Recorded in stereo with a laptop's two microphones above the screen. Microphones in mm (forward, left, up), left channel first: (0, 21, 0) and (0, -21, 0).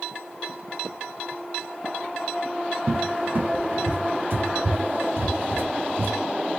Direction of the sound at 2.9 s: 55° right (ahead or behind).